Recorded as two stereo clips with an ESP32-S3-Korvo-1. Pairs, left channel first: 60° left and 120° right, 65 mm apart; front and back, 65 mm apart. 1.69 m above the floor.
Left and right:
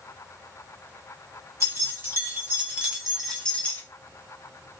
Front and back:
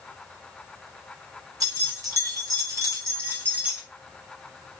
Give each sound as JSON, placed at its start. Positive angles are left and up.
{"t": 1.6, "sound": "keys jangling", "azimuth_deg": -165, "distance_m": 1.5}